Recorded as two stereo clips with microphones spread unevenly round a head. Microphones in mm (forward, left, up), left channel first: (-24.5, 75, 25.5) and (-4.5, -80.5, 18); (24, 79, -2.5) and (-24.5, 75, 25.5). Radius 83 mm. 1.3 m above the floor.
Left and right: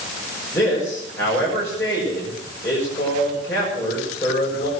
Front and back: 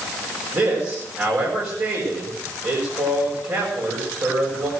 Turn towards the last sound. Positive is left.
turn(degrees=170)